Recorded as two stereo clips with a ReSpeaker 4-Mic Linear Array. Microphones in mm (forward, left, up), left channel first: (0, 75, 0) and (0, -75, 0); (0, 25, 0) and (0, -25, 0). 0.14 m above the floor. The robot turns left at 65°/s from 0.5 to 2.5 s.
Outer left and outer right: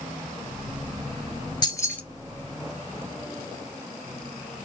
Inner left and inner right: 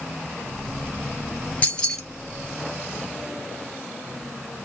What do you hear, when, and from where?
1.6 s keys jangling: 30° left (ahead or behind), 1.6 m; by 2.0 s 10° left (ahead or behind), 1.6 m